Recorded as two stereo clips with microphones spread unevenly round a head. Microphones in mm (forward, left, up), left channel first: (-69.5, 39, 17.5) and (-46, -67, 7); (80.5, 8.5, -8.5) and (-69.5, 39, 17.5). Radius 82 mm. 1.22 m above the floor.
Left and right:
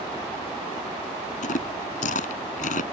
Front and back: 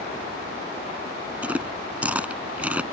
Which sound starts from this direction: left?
Chewing, at 1.4 s.